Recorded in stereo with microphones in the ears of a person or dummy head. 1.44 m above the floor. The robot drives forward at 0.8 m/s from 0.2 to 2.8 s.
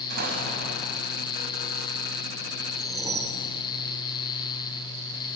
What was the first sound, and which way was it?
An explosion, 55° right (ahead or behind).